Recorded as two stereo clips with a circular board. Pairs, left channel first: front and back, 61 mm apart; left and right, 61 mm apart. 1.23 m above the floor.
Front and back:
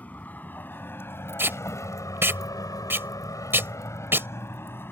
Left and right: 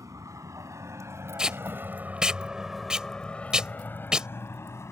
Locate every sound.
0.0 s a vehicle: 65° right; by 4.9 s 50° left
1.4 s tape being pulled: 160° right